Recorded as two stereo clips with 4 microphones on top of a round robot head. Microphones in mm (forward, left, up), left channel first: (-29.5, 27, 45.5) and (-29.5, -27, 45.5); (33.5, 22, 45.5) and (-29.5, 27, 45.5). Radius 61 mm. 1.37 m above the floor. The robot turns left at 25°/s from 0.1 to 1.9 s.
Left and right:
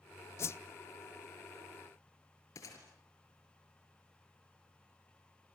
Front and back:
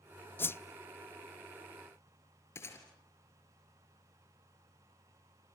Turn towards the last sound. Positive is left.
turn(degrees=45)